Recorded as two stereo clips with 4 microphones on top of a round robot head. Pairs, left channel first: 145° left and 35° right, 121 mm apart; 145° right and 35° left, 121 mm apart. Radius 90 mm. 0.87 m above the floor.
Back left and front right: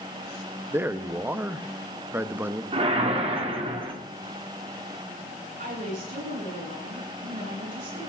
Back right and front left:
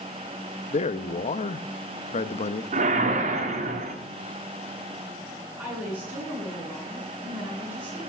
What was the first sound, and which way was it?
A man speaking, 110° right.